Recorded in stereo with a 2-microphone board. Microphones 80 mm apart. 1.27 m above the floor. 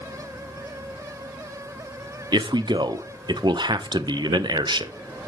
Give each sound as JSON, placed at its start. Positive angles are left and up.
{"t": 2.3, "sound": "a man speaking", "side_deg": -70, "distance_m": 0.6}